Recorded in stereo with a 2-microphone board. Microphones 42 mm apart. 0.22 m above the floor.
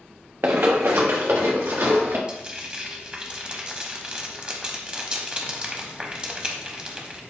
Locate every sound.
0.4 s running footsteps: 60° right (ahead or behind), 0.8 m; by 2.2 s 70° right (ahead or behind), 2.0 m
2.3 s frying: 20° right (ahead or behind), 0.7 m